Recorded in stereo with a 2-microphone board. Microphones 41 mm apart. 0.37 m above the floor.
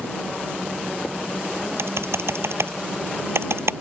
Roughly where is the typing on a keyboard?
Right.